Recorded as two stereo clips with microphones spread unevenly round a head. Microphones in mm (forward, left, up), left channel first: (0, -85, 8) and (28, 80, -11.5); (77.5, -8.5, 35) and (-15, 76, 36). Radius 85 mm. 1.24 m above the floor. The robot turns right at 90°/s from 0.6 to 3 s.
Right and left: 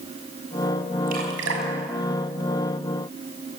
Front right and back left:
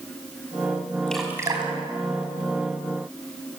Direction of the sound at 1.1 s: 40° left.